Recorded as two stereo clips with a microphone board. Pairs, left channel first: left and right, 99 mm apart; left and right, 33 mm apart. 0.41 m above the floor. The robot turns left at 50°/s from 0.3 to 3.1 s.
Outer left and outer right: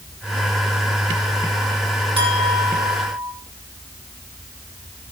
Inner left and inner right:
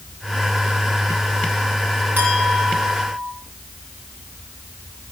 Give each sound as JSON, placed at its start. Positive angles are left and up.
{"t": 2.2, "sound": "a clink", "azimuth_deg": -125, "distance_m": 8.0}